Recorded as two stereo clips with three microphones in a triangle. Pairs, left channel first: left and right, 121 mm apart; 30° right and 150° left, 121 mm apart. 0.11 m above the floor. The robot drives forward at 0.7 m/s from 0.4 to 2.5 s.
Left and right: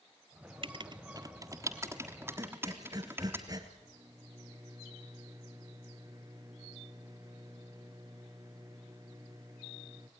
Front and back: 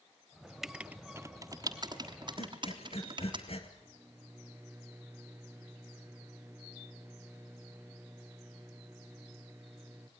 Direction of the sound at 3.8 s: 140° right.